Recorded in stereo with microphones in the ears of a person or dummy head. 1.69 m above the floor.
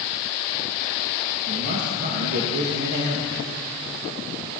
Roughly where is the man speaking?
Right.